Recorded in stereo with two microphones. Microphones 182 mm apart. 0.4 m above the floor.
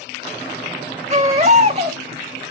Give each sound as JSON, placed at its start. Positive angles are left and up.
{"t": 1.1, "sound": "a baby crying", "side_deg": -35, "distance_m": 0.8}